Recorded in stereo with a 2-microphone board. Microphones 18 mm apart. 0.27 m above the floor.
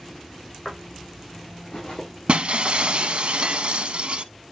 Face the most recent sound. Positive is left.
turn(degrees=-70)  # may be behind; listen again after turning